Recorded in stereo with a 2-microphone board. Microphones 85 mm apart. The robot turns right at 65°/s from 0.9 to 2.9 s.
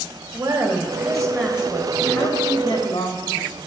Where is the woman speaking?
55° right, 1.6 m; by 3.6 s 75° left, 1.6 m.